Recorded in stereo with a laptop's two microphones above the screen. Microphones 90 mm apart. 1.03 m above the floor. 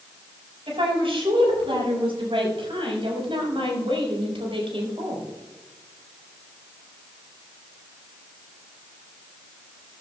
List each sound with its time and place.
0.7 s a woman speaking: 80° right, 6.5 m